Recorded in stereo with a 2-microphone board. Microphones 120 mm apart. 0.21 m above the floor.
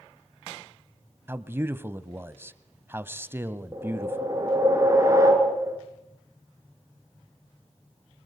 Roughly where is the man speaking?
Centre.